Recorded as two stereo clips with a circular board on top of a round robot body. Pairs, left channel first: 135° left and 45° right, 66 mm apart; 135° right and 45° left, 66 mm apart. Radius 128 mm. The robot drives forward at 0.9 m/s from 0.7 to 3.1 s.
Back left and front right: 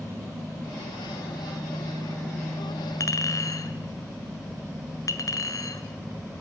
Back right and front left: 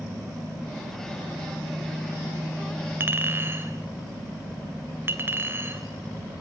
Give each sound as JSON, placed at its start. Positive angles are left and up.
{"t": 3.0, "sound": "a clink", "azimuth_deg": 100, "distance_m": 1.9}